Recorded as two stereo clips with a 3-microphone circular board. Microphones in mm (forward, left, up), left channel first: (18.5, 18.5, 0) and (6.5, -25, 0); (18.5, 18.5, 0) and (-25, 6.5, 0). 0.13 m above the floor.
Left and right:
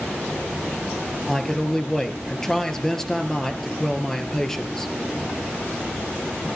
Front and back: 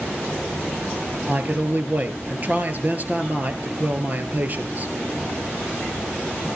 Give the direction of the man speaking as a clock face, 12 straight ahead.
7 o'clock.